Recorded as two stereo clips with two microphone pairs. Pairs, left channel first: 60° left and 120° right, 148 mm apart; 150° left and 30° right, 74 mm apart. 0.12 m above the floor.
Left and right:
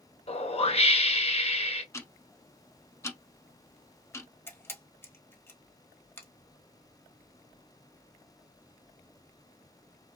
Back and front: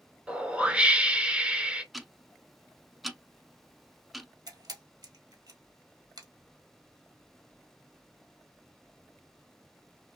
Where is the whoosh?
35° left, 0.6 m.